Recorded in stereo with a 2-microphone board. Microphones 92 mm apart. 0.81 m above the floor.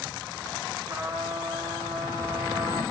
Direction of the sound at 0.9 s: 25° right (ahead or behind).